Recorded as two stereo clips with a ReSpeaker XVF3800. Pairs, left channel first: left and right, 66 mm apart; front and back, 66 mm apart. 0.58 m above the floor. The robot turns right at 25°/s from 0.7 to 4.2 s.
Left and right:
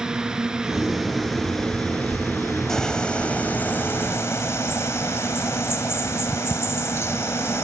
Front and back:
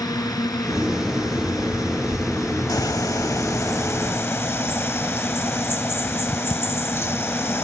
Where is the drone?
10° right; by 7.6 s 75° left.